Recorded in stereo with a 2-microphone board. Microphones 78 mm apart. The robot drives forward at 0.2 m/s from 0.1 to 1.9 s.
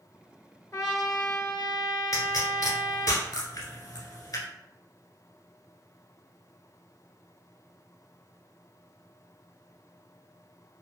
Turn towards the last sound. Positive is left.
turn(degrees=60)  # may be behind; listen again after turning